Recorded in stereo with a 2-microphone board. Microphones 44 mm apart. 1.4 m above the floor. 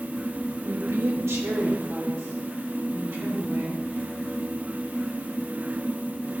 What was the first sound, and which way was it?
A woman speaking, 80° right.